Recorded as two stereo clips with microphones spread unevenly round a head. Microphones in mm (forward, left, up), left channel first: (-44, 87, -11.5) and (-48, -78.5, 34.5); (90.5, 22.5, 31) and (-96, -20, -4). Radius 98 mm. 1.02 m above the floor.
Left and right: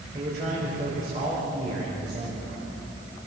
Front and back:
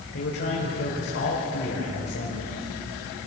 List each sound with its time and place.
0.1 s a man speaking: 30° right, 4.5 m